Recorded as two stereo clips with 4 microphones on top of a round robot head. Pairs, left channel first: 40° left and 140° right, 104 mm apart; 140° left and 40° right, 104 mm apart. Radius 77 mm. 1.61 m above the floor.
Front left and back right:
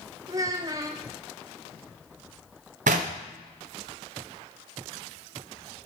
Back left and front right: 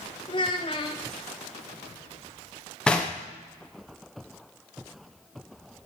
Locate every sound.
0.3 s a child speaking: 170° left, 0.5 m
2.9 s knocking: 140° right, 0.7 m